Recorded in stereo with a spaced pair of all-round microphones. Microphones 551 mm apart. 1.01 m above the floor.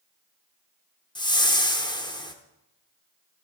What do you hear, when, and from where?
1.1 s a whoosh: 10° left (ahead or behind), 0.7 m